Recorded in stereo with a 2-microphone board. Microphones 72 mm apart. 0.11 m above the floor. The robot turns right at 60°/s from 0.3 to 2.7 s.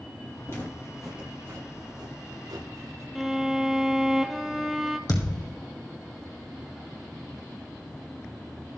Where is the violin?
5° right (ahead or behind), 1.0 m.